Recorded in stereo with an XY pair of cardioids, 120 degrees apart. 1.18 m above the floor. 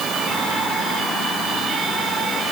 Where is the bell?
No bell in this recording.